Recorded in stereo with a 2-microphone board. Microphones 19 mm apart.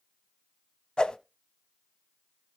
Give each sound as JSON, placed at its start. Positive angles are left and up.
{"t": 1.0, "sound": "a whoosh", "side_deg": 50, "distance_m": 0.5}